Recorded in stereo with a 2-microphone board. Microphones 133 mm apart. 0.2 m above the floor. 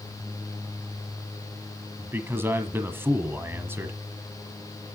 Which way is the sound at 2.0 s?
15° right (ahead or behind).